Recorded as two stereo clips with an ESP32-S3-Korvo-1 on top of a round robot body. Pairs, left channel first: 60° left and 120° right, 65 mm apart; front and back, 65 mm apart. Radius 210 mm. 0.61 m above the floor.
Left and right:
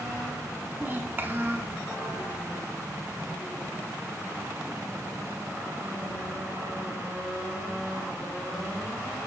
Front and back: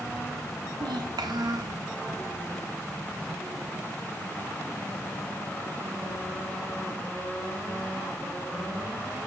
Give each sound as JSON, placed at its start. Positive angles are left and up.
{"t": 0.8, "sound": "a child speaking", "azimuth_deg": 180, "distance_m": 1.4}